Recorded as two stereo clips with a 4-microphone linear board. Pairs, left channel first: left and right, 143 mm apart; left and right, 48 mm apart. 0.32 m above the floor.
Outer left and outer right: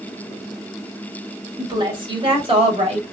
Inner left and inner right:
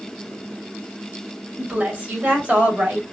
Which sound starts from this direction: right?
A woman speaking, at 1.6 s.